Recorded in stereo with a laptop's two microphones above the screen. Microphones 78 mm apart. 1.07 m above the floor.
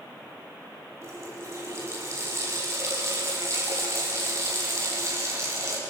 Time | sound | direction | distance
1.0 | a running tap | 40° right (ahead or behind) | 5 m